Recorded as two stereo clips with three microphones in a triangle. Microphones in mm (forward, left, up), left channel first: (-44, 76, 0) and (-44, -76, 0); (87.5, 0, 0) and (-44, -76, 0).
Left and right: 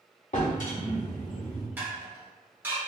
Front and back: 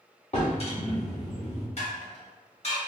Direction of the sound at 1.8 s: 15° right.